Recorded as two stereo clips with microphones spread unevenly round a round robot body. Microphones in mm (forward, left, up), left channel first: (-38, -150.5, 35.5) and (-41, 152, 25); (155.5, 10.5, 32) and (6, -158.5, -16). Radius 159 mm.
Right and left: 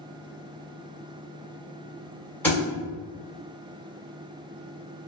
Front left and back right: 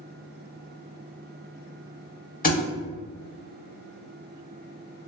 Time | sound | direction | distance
2.4 | a thud | 5° right | 1.2 m